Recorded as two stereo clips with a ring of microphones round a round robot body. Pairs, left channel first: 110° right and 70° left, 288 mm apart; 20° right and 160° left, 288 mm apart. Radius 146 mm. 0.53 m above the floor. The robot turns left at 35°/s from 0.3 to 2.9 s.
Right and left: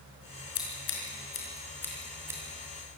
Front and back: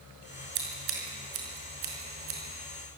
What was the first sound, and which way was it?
Scissors, 150° right.